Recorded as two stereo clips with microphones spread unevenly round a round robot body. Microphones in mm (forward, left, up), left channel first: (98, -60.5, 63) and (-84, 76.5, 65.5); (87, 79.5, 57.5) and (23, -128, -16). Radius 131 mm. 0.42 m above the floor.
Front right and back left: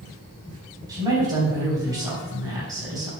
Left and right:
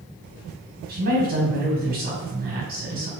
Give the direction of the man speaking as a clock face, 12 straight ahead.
5 o'clock.